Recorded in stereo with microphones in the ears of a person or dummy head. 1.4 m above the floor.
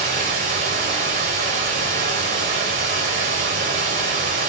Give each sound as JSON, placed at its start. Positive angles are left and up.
{"t": 0.0, "sound": "running water", "side_deg": -35, "distance_m": 0.9}